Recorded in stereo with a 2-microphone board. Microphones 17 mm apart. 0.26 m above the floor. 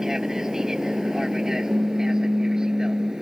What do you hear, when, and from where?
0.0 s an aircraft: 40° right (ahead or behind)
1.7 s a pop: 50° right (ahead or behind)